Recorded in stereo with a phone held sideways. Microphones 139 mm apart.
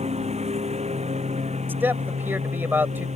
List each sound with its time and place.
0.0 s a lawn mower: 50° right (ahead or behind); by 3.2 s 55° right (ahead or behind)
1.7 s a man speaking: 15° right (ahead or behind)